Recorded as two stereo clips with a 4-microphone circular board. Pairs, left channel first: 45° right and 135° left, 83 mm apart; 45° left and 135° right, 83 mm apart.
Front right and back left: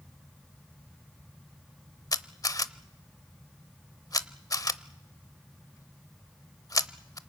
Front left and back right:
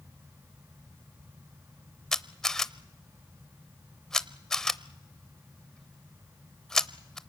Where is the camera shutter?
35° right, 0.7 m.